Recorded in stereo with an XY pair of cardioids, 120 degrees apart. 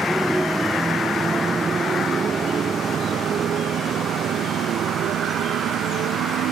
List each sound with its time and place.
0.0 s a motorcycle: 5° right; by 6.5 s 65° right